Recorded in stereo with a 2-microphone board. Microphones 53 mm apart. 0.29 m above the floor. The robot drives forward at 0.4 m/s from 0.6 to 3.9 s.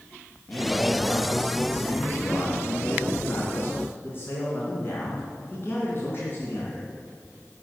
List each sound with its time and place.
0.5 s a man speaking: 30° left (ahead or behind), 3.5 m; by 6.9 s 45° left (ahead or behind), 2.5 m